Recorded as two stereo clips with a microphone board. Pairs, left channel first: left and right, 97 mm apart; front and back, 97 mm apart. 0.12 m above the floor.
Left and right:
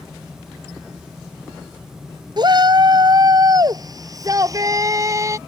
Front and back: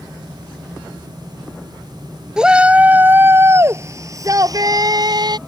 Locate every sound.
2.4 s a shout: 100° right; by 5.4 s 145° right